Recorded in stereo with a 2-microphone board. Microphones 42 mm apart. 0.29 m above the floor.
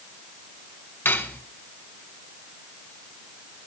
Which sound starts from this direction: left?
Cutlery clinking, at 1.1 s.